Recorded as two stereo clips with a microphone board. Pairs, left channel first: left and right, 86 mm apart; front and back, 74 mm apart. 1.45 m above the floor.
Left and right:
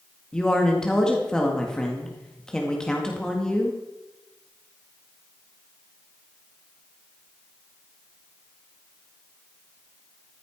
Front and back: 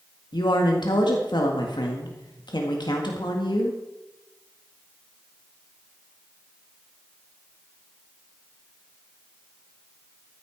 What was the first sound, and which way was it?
A woman speaking, 10° left.